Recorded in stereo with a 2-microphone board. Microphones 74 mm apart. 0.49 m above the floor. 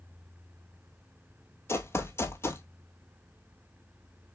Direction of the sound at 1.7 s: 35° left (ahead or behind).